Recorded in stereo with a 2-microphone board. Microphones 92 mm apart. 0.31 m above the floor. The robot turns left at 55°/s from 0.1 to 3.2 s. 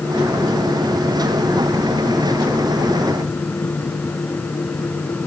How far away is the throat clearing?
No throat clearing in this recording.